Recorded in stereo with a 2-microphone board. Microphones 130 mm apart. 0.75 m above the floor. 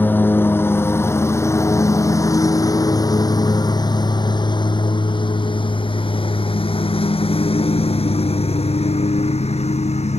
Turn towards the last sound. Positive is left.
turn(degrees=55)  # may be behind; listen again after turning